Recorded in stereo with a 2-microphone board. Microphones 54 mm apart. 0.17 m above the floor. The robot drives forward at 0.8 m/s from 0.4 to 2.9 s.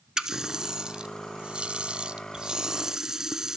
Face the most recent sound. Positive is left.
turn(degrees=-10)  # may be behind; listen again after turning